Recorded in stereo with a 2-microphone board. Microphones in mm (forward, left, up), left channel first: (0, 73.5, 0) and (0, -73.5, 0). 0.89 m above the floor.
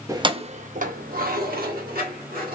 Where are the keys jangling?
20° right (ahead or behind), 0.5 m; by 2.6 s 80° right, 1.6 m.